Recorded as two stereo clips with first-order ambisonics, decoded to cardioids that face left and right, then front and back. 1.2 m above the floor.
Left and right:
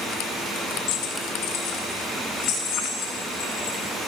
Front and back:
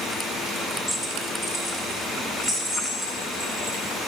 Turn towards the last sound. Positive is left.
turn(degrees=70)